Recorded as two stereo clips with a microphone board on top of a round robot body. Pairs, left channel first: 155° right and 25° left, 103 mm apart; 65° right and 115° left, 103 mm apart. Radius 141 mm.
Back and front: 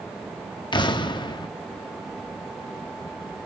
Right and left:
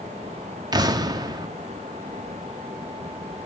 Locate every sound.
0.7 s an explosion: 160° left, 1.3 m